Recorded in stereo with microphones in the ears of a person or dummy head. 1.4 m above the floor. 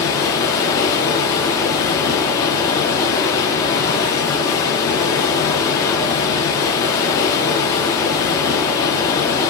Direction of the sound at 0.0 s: 15° left (ahead or behind).